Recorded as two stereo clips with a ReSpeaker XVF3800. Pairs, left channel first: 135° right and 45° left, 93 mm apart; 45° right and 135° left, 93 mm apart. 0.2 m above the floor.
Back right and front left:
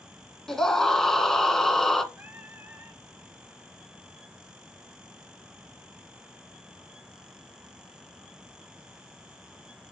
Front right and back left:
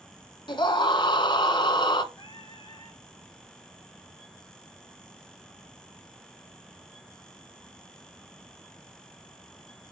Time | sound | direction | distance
0.5 | a scream | 50° right | 1.8 m
2.1 | singing | 20° right | 3 m